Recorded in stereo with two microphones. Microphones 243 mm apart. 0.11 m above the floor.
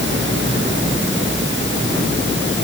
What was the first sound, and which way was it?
Only background noise.